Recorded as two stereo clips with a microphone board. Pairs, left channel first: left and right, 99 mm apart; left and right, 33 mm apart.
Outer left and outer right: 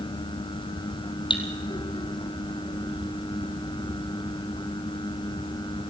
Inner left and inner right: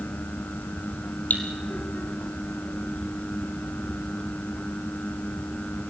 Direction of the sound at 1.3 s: 55° left (ahead or behind).